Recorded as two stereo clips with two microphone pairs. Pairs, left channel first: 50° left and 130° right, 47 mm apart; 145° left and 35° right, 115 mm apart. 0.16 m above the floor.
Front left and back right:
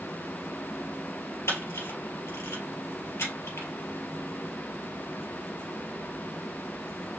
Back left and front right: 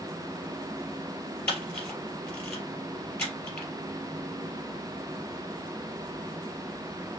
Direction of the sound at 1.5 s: 65° left.